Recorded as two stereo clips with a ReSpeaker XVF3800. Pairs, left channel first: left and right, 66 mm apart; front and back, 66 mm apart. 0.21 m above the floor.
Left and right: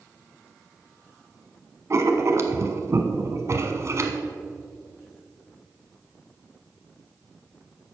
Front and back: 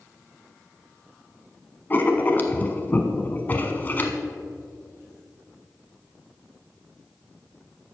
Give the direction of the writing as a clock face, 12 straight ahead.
2 o'clock.